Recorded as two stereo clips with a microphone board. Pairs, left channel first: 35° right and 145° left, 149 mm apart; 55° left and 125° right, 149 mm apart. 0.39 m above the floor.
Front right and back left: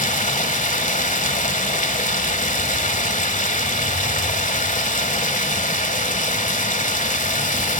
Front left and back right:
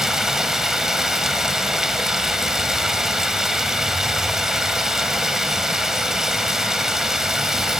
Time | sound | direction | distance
0.0 | running water | 35° right | 1.3 m